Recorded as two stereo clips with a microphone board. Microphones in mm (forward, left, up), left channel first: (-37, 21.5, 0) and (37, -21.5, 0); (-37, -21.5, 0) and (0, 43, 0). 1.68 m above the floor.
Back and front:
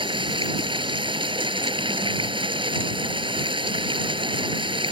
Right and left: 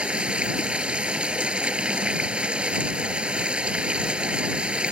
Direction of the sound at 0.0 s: 15° right.